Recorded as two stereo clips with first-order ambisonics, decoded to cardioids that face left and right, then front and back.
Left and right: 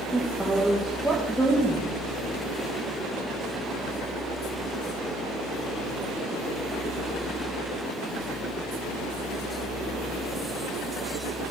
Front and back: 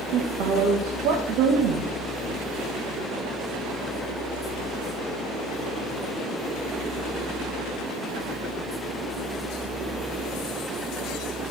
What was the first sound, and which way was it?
A woman speaking, 175° right.